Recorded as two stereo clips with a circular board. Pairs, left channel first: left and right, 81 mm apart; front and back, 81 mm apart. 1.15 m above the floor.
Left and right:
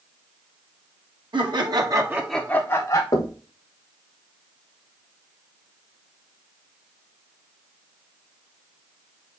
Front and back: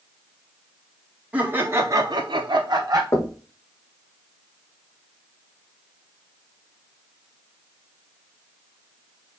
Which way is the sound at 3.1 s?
55° left.